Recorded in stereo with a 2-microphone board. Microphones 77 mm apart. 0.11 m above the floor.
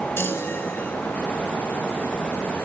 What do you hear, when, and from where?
0.2 s a chime: 30° left (ahead or behind), 2 m